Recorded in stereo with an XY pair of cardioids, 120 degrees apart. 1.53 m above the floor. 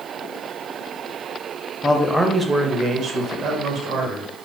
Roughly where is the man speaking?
Ahead.